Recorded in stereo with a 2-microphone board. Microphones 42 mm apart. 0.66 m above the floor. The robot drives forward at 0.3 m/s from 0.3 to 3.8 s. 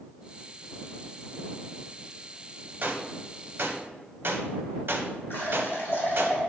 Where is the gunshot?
45° right (ahead or behind), 0.5 m; by 6.3 s 55° right (ahead or behind), 0.5 m.